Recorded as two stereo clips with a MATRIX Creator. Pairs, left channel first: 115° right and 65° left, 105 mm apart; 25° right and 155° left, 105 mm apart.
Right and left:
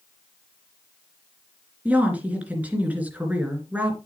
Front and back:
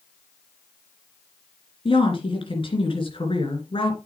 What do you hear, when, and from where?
1.9 s a woman speaking: 5° right, 3 m